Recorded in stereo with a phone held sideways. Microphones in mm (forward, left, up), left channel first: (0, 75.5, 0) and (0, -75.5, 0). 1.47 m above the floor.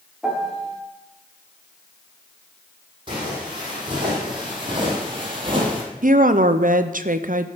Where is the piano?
Centre (ahead or behind), 1.8 m.